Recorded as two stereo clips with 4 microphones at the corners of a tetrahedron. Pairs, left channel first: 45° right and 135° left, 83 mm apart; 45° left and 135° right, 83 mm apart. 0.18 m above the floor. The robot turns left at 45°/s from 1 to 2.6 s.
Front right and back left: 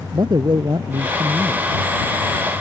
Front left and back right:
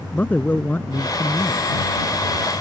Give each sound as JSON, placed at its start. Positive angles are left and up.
{"t": 0.1, "sound": "a man speaking", "azimuth_deg": 110}